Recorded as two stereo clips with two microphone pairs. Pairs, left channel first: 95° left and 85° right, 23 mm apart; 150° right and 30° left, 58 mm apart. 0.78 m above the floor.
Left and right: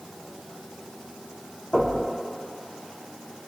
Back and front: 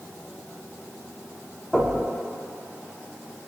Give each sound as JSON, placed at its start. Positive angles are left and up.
{"t": 1.7, "sound": "knocking", "azimuth_deg": 115, "distance_m": 4.5}